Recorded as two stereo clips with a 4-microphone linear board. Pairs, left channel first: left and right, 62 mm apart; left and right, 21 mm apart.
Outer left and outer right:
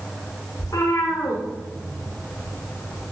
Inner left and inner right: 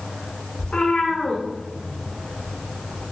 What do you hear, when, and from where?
0.6 s a cat meowing: 80° left, 6.5 m; by 3.0 s 55° left (ahead or behind), 7.5 m